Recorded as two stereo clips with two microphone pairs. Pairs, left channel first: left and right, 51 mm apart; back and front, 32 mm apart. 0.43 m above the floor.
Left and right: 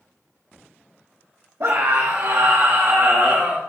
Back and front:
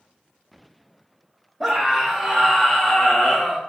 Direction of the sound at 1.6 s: 80° right.